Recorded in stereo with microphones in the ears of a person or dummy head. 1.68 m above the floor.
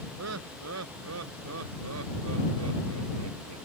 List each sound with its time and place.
0.2 s laughter: 80° right; by 3.6 s 90° right